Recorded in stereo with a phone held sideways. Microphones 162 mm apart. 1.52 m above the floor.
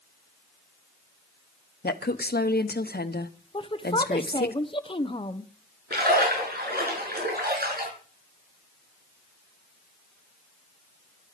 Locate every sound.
1.8 s a woman speaking: 80° left, 1.0 m
3.5 s a woman speaking: 35° left (ahead or behind), 1.0 m
5.9 s a splash: 75° right (ahead or behind), 6 m